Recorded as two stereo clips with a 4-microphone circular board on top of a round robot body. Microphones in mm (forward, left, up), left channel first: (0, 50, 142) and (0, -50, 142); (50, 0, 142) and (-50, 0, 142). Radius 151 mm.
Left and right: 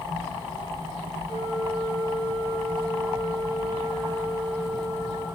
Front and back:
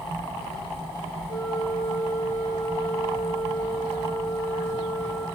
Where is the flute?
25° right, 3 m.